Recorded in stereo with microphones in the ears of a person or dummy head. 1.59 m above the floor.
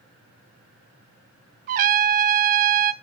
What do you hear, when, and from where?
1.7 s a trumpet: 50° right (ahead or behind), 0.6 m